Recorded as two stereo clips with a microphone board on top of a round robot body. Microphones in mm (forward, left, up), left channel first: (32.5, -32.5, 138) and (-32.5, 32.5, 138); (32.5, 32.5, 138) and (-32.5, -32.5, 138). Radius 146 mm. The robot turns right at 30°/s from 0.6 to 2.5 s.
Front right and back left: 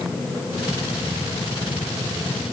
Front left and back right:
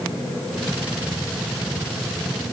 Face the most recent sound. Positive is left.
No sound to turn to.